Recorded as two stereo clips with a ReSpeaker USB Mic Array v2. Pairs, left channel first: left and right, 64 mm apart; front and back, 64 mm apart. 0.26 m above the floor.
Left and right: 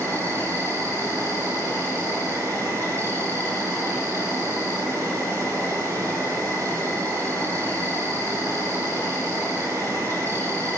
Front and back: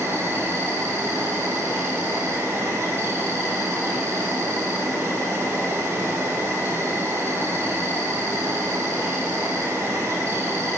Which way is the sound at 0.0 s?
130° right.